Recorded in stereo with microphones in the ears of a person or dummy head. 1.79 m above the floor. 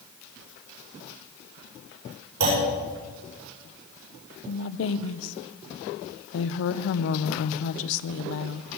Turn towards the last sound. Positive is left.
turn(degrees=70)  # may be behind; listen again after turning